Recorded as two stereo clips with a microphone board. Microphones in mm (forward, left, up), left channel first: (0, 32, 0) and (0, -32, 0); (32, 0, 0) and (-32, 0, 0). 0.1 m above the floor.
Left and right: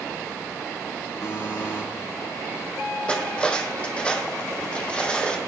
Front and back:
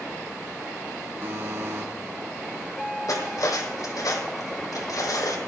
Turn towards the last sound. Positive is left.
turn(degrees=20)